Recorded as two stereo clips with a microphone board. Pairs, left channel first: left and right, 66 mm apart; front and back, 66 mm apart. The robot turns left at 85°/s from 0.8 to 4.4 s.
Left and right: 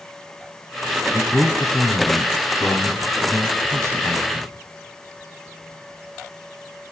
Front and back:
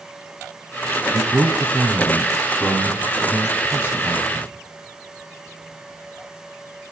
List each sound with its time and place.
1.1 s a man speaking: 175° right, 2.5 m; by 4.5 s 90° right, 2.5 m